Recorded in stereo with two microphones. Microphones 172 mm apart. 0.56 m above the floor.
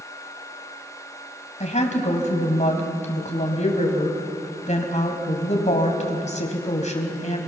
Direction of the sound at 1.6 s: 45° left (ahead or behind).